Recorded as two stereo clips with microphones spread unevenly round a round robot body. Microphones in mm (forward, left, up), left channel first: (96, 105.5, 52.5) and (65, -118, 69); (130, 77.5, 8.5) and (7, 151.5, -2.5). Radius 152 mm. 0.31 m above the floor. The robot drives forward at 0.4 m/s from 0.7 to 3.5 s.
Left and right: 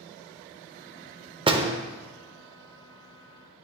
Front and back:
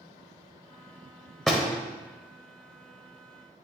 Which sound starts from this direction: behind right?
A door slam, at 1.5 s.